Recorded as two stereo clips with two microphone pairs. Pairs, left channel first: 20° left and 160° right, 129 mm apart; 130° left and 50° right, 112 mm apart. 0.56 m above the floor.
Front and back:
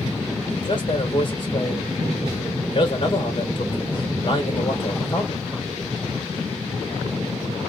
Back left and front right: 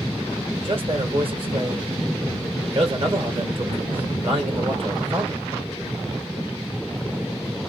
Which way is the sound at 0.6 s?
25° right.